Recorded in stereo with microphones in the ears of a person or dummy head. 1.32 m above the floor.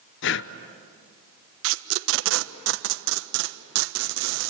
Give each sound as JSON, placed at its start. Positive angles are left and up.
{"t": 0.2, "sound": "breathing", "side_deg": 55, "distance_m": 0.8}
{"t": 1.6, "sound": "tape being pulled", "side_deg": -70, "distance_m": 1.0}